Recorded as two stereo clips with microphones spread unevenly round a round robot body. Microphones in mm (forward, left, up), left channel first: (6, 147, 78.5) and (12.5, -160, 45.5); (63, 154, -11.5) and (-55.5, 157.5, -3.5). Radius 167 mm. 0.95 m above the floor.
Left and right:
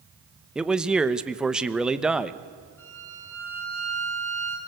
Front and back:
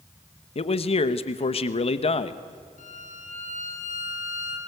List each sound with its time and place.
0.6 s a man speaking: 5° right, 1.0 m
2.8 s a violin: 10° left, 5.5 m